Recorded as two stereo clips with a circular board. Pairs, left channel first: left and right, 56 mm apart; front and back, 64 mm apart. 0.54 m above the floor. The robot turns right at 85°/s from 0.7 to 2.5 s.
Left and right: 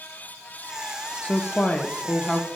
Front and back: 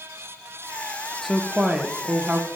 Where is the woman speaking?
80° left, 0.7 m; by 2.5 s 175° right, 0.7 m.